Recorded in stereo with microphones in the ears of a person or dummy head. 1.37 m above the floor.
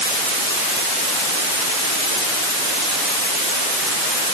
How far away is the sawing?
I don't hear sawing.